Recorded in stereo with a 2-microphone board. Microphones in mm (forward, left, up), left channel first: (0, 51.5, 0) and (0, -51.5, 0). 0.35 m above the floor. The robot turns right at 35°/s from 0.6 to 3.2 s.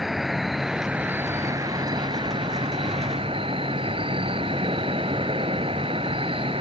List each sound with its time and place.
0.0 s an insect: 175° right; by 6.6 s 85° right